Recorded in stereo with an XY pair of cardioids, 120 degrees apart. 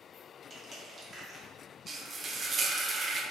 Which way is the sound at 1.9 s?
30° right.